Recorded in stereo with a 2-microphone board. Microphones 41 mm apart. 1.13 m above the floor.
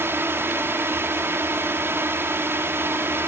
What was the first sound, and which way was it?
A drone, 60° right (ahead or behind).